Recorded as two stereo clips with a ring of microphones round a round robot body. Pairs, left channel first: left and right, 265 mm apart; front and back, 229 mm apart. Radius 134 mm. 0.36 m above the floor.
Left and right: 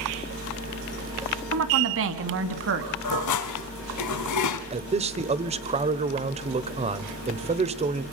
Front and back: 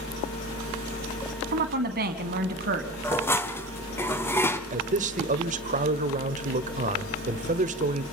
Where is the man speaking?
145° right, 1.4 m.